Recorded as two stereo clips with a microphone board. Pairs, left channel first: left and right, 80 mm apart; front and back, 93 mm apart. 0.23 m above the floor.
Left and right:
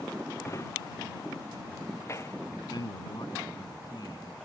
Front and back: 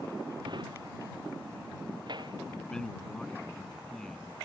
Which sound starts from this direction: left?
A man speaking, at 2.7 s.